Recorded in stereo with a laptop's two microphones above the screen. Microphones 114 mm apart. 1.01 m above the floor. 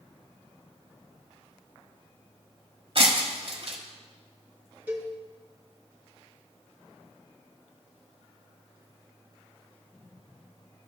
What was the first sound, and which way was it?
Breaking glass, 55° right (ahead or behind).